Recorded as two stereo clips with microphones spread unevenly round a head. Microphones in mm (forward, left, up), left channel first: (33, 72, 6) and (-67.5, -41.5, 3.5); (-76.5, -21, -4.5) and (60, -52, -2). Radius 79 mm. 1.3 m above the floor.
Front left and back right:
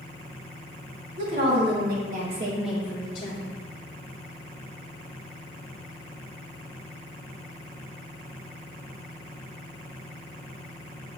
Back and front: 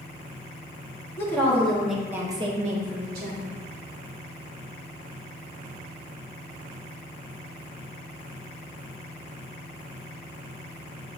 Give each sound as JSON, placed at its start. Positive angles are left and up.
{"t": 1.2, "sound": "a woman speaking", "azimuth_deg": -120, "distance_m": 1.8}